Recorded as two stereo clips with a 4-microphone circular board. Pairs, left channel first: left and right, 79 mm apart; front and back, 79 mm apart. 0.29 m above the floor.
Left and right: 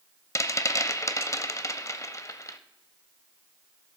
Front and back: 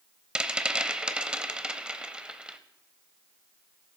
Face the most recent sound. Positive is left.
turn(degrees=105)